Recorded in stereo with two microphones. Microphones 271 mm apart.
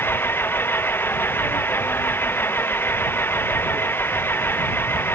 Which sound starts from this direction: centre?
An engine running, at 0.0 s.